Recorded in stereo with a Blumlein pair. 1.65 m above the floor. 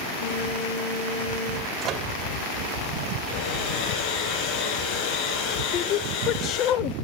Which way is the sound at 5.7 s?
35° left.